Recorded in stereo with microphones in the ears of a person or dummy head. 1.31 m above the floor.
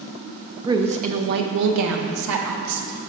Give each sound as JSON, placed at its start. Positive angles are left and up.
{"t": 0.7, "sound": "a woman speaking", "side_deg": -15, "distance_m": 0.6}